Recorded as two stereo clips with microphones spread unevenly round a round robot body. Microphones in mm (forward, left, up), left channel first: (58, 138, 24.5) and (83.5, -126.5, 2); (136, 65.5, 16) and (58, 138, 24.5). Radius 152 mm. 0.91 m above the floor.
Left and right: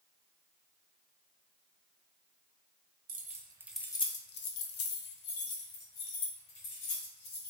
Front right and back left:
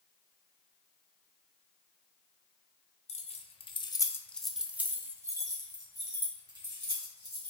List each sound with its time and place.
3.1 s keys jangling: 25° right, 0.8 m; by 7.5 s 90° left, 2.5 m